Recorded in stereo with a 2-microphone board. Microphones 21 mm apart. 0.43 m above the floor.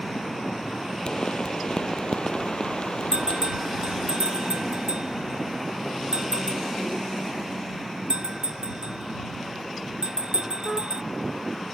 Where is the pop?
50° left (ahead or behind).